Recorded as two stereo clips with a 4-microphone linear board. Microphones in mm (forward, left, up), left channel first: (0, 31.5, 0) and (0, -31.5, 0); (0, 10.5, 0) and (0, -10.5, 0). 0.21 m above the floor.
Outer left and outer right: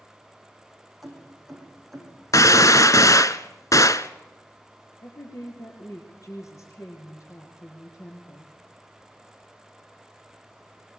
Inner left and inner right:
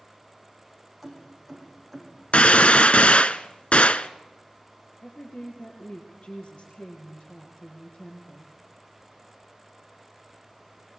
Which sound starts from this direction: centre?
Keys jangling, at 1.0 s.